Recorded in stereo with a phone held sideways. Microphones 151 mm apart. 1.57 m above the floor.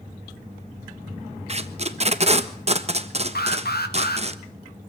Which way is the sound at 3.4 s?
90° left.